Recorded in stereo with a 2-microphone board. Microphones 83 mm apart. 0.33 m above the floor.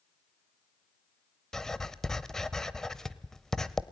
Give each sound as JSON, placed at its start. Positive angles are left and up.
{"t": 1.5, "sound": "writing", "side_deg": 5, "distance_m": 0.8}